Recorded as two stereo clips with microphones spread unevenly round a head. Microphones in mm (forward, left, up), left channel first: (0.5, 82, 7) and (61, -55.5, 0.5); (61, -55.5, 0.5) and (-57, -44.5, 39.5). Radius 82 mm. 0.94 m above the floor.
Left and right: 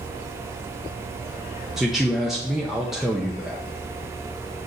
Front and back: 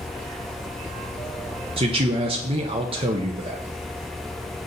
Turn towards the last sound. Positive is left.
turn(degrees=-150)